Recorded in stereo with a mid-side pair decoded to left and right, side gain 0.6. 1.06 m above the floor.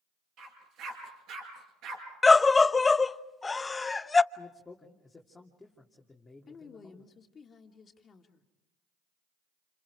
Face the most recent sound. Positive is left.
turn(degrees=35)